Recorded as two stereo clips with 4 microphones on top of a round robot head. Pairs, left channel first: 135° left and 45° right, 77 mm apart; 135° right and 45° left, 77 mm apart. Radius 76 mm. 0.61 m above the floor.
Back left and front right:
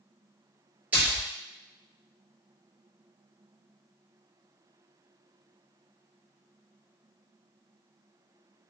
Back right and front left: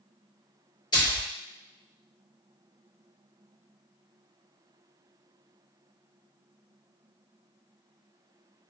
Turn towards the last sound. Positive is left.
turn(degrees=-115)